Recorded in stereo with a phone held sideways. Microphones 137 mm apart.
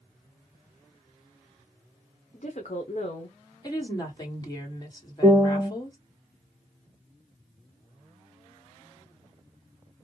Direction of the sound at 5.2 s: 20° right (ahead or behind).